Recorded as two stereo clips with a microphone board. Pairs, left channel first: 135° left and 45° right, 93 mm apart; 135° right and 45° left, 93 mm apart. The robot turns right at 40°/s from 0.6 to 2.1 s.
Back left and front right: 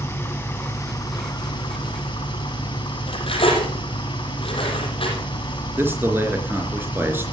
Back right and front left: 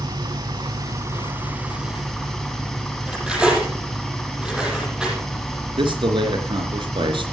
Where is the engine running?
75° left, 2.5 m; by 7.3 s 135° left, 2.5 m.